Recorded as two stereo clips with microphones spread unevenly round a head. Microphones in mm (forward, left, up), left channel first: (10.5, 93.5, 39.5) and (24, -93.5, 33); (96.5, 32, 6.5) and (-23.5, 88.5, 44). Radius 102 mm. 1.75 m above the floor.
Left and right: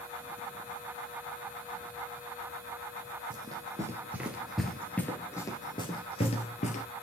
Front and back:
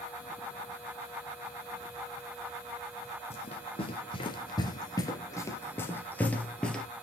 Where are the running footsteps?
40° right, 1.8 m; by 6.9 s 80° left, 2 m.